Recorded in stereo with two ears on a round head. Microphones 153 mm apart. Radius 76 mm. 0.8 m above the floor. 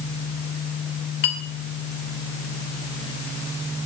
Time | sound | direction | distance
1.2 | a clink | 60° left (ahead or behind) | 2.0 m